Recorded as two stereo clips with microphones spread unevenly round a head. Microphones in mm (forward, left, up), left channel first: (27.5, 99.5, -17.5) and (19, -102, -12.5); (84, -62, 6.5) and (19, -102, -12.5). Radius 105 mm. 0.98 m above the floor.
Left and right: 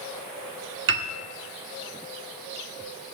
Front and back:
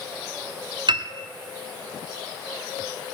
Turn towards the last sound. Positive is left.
turn(degrees=-120)